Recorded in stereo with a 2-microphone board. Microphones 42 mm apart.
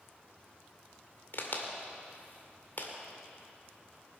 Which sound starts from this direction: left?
A crack, at 1.3 s.